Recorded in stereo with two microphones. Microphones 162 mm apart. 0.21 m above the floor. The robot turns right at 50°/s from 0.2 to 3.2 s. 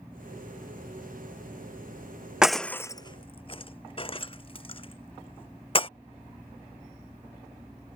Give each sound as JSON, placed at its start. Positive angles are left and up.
{"t": 2.4, "sound": "breaking glass", "side_deg": -5}